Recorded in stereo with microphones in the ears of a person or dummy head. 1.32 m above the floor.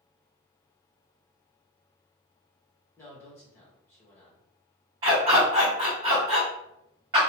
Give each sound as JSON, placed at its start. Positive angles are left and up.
{"t": 3.0, "sound": "a man speaking", "side_deg": 15, "distance_m": 1.1}
{"t": 5.0, "sound": "a dog barking", "side_deg": -20, "distance_m": 0.9}